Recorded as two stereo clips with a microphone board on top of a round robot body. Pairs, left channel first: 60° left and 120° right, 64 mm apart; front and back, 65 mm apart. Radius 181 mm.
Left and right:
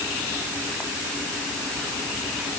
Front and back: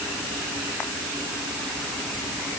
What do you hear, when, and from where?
Only background noise.